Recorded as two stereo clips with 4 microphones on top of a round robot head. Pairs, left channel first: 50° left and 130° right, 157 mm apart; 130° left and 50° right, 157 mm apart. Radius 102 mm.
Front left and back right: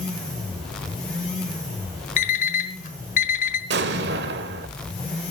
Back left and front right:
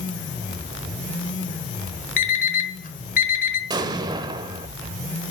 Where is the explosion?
115° right, 0.7 m.